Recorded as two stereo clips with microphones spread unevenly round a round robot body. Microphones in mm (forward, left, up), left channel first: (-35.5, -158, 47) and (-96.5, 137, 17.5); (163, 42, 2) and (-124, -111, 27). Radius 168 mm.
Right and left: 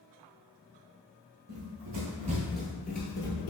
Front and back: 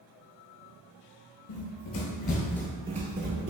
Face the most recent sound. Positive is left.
turn(degrees=-110)